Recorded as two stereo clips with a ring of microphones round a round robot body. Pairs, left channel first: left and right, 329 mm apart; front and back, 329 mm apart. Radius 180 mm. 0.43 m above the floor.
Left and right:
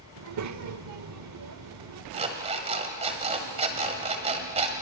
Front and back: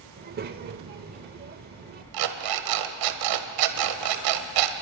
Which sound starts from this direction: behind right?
A child speaking, at 0.2 s.